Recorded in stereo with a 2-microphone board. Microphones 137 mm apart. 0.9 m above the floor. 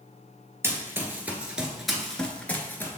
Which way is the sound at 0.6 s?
15° right (ahead or behind).